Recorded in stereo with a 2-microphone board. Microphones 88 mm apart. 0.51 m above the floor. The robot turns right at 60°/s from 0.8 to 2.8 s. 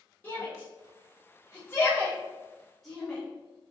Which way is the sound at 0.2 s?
20° left (ahead or behind).